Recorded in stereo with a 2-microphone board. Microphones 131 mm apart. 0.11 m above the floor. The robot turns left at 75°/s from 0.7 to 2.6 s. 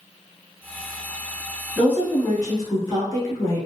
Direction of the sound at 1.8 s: 5° left (ahead or behind).